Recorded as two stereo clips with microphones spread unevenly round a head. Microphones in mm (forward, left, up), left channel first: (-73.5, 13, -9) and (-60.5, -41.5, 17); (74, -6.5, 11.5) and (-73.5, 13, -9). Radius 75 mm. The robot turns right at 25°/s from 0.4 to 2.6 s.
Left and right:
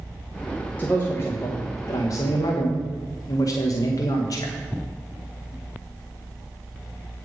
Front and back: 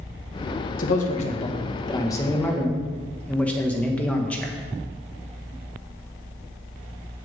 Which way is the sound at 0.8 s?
30° left.